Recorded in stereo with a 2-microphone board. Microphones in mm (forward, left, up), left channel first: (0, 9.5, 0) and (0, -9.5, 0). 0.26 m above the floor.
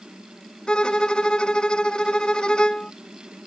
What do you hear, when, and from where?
0.7 s a violin: 50° left (ahead or behind)